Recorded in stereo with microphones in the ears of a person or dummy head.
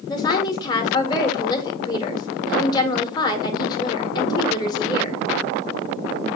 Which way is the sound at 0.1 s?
20° left (ahead or behind).